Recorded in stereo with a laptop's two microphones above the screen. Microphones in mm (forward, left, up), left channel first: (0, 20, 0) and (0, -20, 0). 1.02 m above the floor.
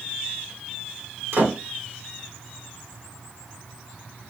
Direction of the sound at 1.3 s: 75° right (ahead or behind).